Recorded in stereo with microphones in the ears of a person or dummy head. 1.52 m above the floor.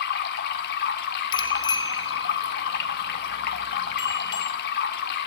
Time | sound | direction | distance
0.0 | running water | 50° left (ahead or behind) | 1.7 m
1.3 | a bicycle bell | 25° left (ahead or behind) | 3 m